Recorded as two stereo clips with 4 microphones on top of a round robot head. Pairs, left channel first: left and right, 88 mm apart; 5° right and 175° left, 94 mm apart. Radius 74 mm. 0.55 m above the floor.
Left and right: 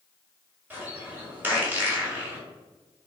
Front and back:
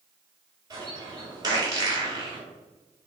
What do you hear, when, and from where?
0.7 s a bird: 150° right, 1.6 m